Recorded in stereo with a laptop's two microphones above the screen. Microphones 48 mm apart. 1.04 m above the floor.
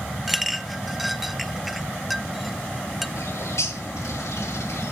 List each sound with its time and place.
0.3 s a clink: centre (ahead or behind), 0.6 m
3.2 s a bird: 85° left, 1.4 m